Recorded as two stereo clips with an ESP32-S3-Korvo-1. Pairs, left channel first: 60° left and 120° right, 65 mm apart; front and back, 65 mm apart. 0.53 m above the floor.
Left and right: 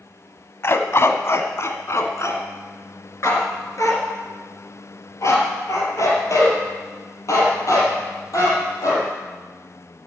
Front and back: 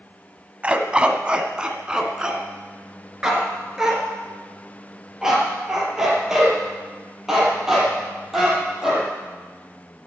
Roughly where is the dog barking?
Left.